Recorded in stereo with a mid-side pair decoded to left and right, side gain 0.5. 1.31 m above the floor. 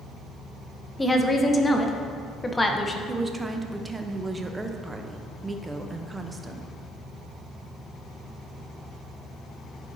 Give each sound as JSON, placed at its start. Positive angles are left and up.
{"t": 1.0, "sound": "a woman speaking", "azimuth_deg": 15, "distance_m": 0.8}
{"t": 3.1, "sound": "a woman speaking", "azimuth_deg": -20, "distance_m": 0.8}